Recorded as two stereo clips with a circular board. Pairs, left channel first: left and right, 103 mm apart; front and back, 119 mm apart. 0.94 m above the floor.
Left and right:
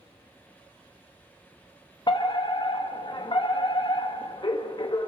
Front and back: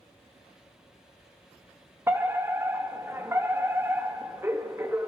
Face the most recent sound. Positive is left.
turn(degrees=115)